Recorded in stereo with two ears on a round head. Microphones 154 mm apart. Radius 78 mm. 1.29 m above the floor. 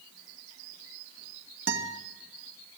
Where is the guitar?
80° right, 2.5 m.